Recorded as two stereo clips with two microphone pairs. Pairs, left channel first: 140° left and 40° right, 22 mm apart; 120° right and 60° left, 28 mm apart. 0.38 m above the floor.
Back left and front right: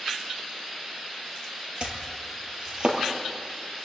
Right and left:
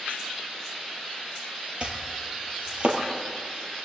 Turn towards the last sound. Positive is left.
turn(degrees=10)